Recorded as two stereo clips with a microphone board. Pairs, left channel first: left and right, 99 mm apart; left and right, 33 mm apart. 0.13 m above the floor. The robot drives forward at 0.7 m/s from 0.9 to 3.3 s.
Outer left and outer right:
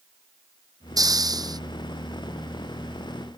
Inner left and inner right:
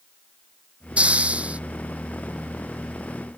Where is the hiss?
40° right (ahead or behind).